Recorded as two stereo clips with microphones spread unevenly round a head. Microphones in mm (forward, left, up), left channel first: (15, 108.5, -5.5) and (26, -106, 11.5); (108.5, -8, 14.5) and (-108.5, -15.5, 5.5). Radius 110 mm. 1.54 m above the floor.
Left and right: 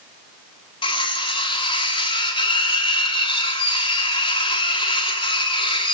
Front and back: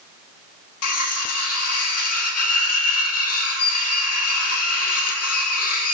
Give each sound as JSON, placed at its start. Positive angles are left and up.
{"t": 0.8, "sound": "cutlery clinking", "azimuth_deg": 25, "distance_m": 2.5}